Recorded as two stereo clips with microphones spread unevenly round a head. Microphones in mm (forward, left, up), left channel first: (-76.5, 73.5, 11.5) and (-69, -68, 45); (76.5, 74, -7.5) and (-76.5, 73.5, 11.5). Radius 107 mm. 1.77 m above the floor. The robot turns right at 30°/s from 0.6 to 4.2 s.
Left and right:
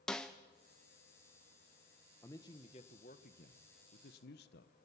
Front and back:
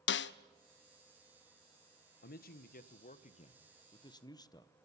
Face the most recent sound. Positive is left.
turn(degrees=65)